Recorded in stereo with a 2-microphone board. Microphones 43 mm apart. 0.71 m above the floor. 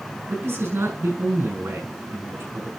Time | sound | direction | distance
0.3 | a man speaking | 80° right | 6 m